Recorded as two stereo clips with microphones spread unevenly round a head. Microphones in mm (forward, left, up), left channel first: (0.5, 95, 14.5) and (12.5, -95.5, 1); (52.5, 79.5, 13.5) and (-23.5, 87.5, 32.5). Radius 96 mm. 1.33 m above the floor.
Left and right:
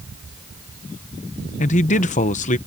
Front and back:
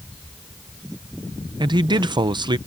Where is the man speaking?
150° left.